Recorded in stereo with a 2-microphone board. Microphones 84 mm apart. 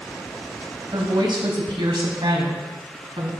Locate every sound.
0.9 s a woman speaking: 55° right (ahead or behind), 2.5 m; by 3.3 s 80° right, 4 m